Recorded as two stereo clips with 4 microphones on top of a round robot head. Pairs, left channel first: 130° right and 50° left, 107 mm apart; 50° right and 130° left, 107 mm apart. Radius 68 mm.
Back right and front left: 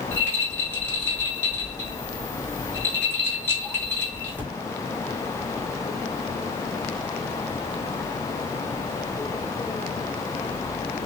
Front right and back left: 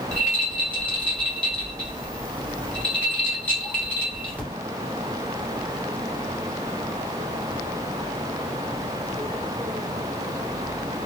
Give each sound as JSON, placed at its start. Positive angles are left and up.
{"t": 0.1, "sound": "a rattle", "azimuth_deg": -105, "distance_m": 1.4}